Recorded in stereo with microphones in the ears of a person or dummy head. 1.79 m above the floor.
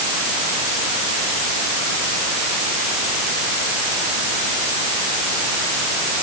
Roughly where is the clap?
I don't hear a clap.